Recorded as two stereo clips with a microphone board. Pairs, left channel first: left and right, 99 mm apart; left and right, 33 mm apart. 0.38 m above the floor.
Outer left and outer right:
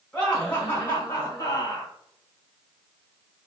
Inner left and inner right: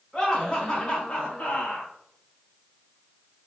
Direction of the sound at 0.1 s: 10° left (ahead or behind).